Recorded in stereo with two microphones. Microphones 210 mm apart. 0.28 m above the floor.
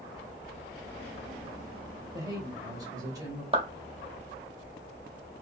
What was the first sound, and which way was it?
A man speaking, 15° right (ahead or behind).